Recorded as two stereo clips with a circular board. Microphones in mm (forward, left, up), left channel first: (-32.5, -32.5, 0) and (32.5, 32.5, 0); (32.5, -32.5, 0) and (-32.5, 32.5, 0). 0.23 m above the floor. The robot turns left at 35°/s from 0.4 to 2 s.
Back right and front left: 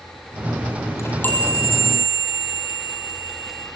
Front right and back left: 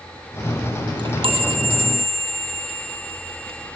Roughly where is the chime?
Behind.